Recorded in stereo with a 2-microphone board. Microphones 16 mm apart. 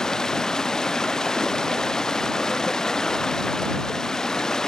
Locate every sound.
0.0 s running water: 50° left (ahead or behind)